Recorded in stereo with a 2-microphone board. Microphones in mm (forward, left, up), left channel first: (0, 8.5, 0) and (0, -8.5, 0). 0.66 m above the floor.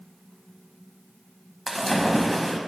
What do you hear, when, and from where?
1.7 s a splash: 5° right (ahead or behind), 0.9 m